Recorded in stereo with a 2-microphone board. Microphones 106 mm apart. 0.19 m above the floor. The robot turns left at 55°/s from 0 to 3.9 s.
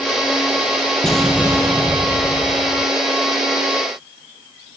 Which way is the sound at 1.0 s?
5° left.